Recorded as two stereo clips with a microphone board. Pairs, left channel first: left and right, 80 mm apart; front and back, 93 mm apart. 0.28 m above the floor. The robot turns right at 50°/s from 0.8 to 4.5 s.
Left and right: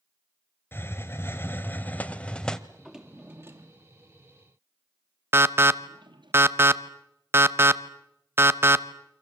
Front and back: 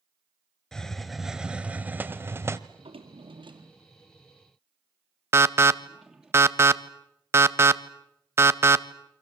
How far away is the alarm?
About 0.8 m.